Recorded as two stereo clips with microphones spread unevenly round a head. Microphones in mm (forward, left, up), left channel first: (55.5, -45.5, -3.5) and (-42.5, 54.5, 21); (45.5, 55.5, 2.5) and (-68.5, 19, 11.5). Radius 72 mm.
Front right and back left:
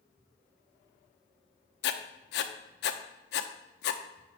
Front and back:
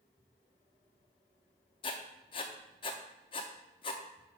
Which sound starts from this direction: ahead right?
Writing, at 1.8 s.